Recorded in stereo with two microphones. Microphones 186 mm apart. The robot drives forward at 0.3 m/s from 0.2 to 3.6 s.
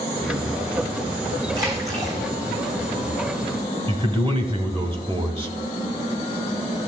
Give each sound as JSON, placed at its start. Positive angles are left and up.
{"t": 1.5, "sound": "a splash", "side_deg": -20, "distance_m": 3.0}
{"t": 3.9, "sound": "a man speaking", "side_deg": -30, "distance_m": 1.0}